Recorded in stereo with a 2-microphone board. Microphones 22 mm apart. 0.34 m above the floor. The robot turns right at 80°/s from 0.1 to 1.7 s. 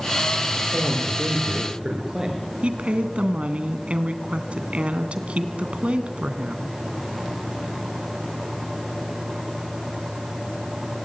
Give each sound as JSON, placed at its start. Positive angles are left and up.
{"t": 0.5, "sound": "a man speaking", "azimuth_deg": -120, "distance_m": 7.5}
{"t": 2.6, "sound": "a woman speaking", "side_deg": -70, "distance_m": 2.5}